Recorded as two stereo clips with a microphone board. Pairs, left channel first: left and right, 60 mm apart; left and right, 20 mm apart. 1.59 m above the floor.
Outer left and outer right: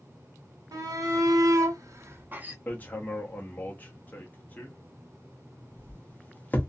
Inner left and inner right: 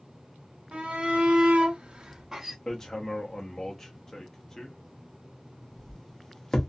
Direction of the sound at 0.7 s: 75° right (ahead or behind).